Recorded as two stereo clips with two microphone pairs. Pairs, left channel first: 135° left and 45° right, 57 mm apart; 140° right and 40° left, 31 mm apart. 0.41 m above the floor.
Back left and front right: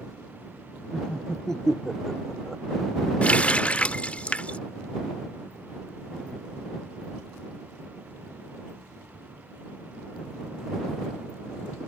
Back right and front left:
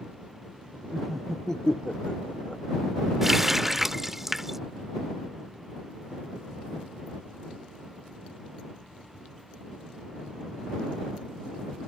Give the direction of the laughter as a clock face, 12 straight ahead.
9 o'clock.